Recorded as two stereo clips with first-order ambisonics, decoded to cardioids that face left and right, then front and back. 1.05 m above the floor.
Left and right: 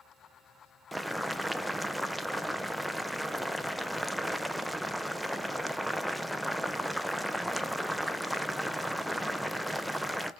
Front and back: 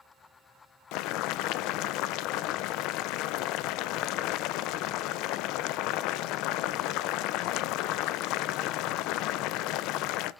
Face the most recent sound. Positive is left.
turn(degrees=-5)